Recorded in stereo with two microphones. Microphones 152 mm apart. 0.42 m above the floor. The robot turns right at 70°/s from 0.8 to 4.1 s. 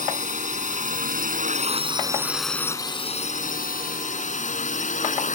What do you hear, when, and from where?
0.0 s a drone: 60° right (ahead or behind); by 5.4 s 60° left (ahead or behind)